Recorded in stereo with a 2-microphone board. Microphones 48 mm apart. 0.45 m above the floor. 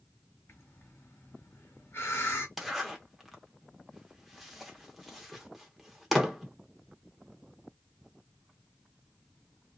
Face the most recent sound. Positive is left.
turn(degrees=0)  # may be behind; listen again after turning